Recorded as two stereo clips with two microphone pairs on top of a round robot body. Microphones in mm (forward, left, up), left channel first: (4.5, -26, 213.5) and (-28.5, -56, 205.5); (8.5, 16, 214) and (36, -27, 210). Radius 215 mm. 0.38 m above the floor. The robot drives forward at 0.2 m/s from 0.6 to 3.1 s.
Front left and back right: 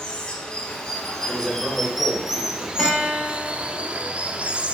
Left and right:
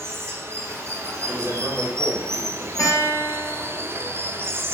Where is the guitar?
135° left, 0.9 m.